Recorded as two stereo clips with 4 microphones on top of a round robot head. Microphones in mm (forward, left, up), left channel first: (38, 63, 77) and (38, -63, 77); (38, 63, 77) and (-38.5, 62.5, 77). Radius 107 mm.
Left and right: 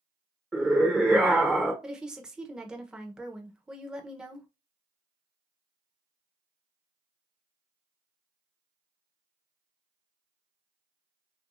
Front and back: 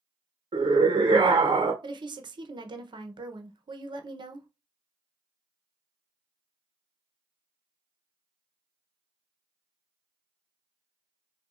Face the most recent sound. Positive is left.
turn(degrees=-175)